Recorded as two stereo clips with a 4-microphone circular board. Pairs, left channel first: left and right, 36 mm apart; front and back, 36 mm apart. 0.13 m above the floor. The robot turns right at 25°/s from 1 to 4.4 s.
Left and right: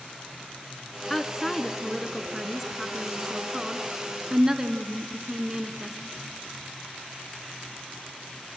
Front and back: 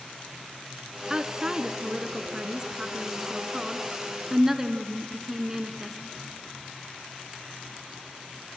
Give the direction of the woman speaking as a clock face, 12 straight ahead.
7 o'clock.